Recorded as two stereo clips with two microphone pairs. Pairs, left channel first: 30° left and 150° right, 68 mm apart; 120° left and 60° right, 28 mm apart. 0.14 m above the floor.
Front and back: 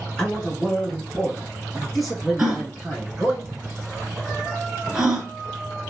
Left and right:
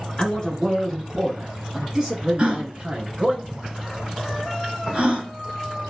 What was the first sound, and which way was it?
A man speaking, 90° left.